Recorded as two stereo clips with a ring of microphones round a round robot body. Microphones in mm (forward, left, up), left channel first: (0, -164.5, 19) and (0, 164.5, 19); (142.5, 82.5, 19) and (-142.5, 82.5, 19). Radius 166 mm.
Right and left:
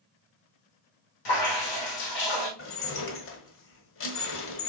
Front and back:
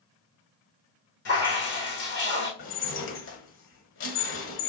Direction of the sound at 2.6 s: 45° right.